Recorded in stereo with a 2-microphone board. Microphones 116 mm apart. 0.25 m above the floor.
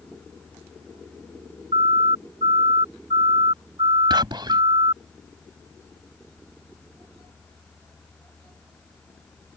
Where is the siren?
60° right (ahead or behind); by 5.0 s 45° right (ahead or behind).